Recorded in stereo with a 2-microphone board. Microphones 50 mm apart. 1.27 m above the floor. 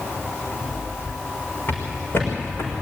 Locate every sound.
1.7 s footsteps: 45° left (ahead or behind), 6 m; by 2.7 s 55° left (ahead or behind), 6 m